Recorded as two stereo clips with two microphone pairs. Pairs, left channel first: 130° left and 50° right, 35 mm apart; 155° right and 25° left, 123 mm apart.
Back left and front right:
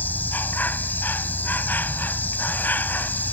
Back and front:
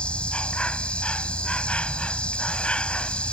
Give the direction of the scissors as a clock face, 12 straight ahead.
No scissors in this recording.